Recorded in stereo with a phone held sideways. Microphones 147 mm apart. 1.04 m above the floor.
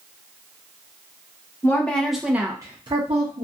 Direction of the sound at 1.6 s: 15° left (ahead or behind).